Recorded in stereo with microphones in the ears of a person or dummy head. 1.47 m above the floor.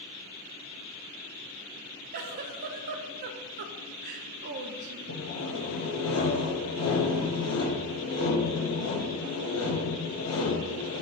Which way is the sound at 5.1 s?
80° left.